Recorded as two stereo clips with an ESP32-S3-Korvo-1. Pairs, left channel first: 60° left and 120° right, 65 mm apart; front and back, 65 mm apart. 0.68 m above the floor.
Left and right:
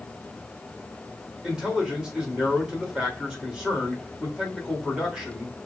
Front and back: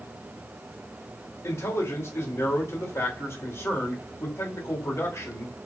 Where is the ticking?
I don't hear ticking.